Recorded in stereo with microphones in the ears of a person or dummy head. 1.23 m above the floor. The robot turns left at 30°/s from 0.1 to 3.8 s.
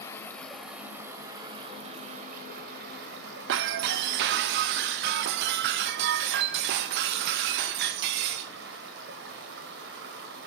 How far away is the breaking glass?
About 0.5 m.